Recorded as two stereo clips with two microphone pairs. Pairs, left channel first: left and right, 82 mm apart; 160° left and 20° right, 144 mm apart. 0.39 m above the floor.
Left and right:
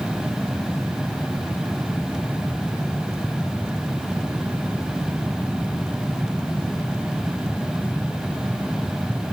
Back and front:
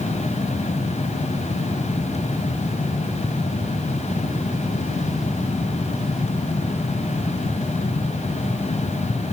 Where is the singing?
No singing in this recording.